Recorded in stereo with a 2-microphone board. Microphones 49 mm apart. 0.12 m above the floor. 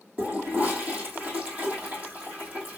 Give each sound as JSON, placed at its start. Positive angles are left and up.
{"t": 0.2, "sound": "a toilet flushing", "side_deg": -30, "distance_m": 1.6}